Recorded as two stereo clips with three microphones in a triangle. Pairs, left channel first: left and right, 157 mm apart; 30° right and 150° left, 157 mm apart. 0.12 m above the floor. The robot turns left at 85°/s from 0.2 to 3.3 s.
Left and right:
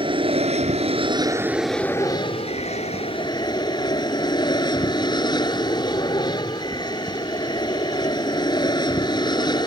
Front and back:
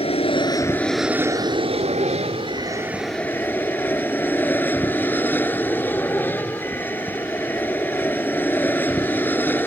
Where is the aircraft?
55° right; by 9.7 s 40° left.